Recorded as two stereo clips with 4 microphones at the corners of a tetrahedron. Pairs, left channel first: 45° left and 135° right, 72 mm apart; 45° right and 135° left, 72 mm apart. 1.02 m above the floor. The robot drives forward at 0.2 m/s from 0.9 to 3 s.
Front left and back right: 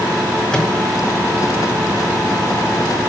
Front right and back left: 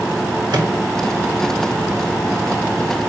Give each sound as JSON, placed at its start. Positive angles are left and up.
{"t": 0.5, "sound": "a microwave", "azimuth_deg": 125, "distance_m": 1.8}